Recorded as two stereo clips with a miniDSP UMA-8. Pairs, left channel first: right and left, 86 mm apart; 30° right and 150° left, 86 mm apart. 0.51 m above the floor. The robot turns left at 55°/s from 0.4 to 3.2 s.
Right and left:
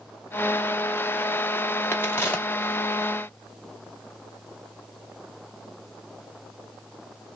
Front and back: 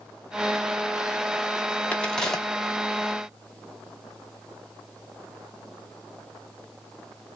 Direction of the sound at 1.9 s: 90° right.